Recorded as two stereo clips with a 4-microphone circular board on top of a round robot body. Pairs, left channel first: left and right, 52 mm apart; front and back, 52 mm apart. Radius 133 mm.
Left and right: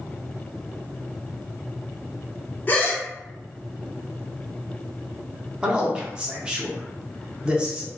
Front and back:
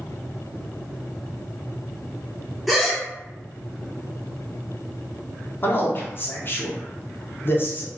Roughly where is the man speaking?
Ahead.